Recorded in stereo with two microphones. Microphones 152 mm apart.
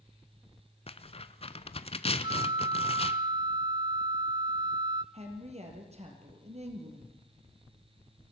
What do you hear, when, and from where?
0.9 s tearing paper: 40° left (ahead or behind), 0.8 m
2.2 s a flute: 30° right (ahead or behind), 0.6 m
5.1 s a woman speaking: 45° right (ahead or behind), 4.5 m